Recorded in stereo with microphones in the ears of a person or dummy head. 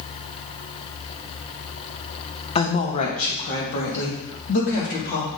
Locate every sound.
2.5 s a woman speaking: 30° left (ahead or behind), 1.4 m; by 5.3 s 60° left (ahead or behind), 3.5 m